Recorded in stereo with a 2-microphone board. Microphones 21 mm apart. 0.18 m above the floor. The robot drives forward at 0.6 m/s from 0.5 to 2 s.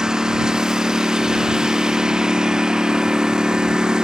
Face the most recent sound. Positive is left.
turn(degrees=-35)  # may be behind; listen again after turning